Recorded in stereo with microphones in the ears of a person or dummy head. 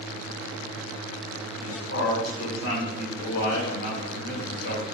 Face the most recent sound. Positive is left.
turn(degrees=75)  # may be behind; listen again after turning